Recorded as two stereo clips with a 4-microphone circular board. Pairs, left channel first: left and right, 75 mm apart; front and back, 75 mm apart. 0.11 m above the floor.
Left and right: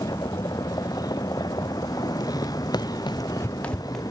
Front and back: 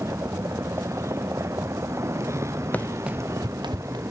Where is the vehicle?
125° left.